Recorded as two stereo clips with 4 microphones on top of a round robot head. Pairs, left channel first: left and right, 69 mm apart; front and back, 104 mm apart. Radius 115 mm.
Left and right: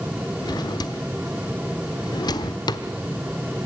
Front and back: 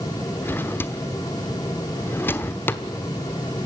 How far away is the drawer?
About 1.1 m.